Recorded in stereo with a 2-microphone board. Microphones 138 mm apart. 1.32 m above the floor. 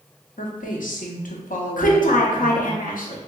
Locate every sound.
0.4 s a woman speaking: 75° left (ahead or behind), 0.7 m
1.8 s a woman speaking: 80° left, 0.7 m